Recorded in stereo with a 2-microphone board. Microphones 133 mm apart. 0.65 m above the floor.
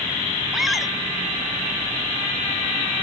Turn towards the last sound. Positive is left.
turn(degrees=-5)  # may be behind; listen again after turning